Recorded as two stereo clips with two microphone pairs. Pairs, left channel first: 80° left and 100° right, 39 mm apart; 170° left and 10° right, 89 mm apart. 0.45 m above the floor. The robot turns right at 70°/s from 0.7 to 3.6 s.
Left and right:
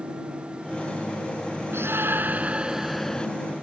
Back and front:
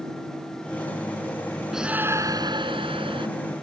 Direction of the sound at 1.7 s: 95° right.